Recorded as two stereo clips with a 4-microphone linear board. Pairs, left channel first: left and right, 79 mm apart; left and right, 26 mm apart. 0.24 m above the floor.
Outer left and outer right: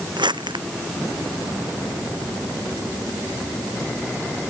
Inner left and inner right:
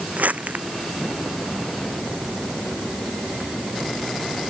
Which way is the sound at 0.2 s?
75° right (ahead or behind).